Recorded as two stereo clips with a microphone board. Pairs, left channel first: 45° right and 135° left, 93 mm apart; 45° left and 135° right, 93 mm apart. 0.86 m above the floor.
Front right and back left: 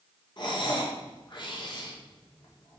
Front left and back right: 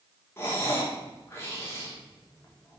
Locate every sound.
0.4 s breathing: 15° right, 2 m